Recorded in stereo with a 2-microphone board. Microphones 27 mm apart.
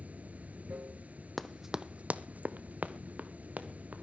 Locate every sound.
0.0 s running water: 65° right (ahead or behind), 0.9 m
1.4 s running footsteps: 5° left (ahead or behind), 0.6 m; by 4.0 s 65° right (ahead or behind), 2 m